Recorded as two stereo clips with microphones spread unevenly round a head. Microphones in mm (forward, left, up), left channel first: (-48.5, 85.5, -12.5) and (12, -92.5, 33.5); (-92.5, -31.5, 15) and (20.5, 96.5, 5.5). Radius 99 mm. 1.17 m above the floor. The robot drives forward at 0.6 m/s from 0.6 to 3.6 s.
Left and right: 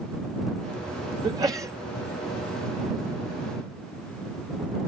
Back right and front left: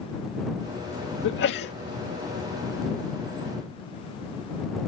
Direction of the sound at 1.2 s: 145° right.